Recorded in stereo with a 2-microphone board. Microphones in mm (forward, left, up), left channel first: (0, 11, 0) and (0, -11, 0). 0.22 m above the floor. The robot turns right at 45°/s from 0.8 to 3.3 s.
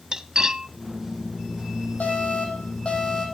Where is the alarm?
85° left, 6 m; by 3.3 s 140° left, 6 m.